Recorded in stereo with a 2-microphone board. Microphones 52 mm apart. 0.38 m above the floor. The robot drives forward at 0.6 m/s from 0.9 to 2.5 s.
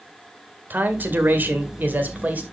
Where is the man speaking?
35° right (ahead or behind), 1.7 m; by 2.4 s 30° right (ahead or behind), 2.0 m.